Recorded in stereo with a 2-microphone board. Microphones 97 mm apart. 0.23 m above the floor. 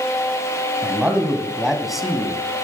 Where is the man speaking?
20° right (ahead or behind), 1.8 m; by 2.4 s 5° left (ahead or behind), 2 m.